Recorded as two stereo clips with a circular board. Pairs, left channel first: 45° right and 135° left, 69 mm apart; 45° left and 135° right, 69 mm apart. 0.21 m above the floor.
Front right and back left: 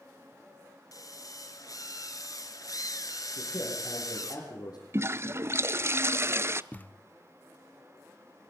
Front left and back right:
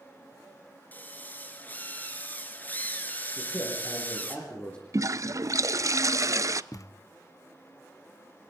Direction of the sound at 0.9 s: 15° right.